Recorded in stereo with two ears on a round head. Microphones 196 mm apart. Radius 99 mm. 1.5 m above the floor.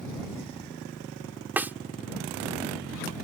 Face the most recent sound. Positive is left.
turn(degrees=-10)  # may be behind; listen again after turning